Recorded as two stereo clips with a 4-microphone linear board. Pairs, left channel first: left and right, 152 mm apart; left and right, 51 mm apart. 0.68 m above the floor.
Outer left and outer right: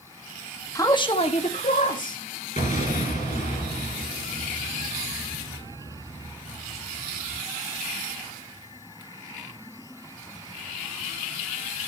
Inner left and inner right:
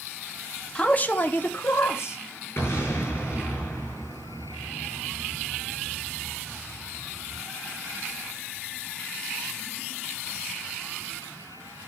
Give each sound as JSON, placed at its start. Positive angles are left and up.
{"t": 0.8, "sound": "a man speaking", "side_deg": 20, "distance_m": 1.1}
{"t": 2.6, "sound": "an explosion", "side_deg": 50, "distance_m": 8.0}